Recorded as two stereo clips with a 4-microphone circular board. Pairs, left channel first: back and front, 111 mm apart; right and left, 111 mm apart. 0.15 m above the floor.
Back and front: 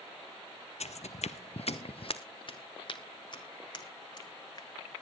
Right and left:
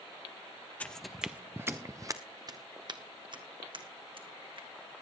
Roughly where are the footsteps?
Behind.